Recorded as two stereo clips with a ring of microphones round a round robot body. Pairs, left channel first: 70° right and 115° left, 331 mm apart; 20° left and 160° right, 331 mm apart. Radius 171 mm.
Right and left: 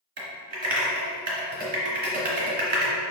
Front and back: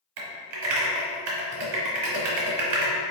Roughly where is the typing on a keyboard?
Behind.